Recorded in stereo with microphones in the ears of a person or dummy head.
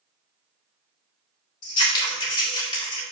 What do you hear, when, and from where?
1.6 s scissors: 25° left (ahead or behind), 2 m